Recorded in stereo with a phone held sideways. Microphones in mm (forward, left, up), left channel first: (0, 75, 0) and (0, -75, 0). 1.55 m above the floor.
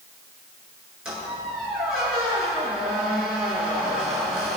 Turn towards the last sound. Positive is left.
turn(degrees=-5)  # may be behind; listen again after turning